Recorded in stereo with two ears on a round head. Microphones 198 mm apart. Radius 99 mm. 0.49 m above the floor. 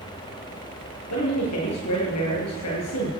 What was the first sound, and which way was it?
A man speaking, 85° left.